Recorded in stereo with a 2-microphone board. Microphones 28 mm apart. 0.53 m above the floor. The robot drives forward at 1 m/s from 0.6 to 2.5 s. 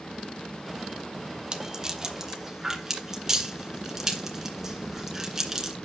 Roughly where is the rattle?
Right.